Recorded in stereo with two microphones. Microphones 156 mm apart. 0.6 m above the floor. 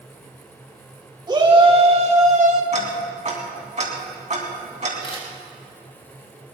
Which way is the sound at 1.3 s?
30° right (ahead or behind).